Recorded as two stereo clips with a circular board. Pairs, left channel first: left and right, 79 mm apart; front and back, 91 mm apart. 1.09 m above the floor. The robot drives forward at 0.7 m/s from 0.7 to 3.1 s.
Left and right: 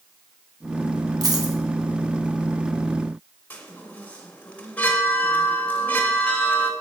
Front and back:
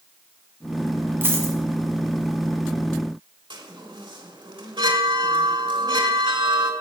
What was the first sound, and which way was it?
A dropped coin, 120° right.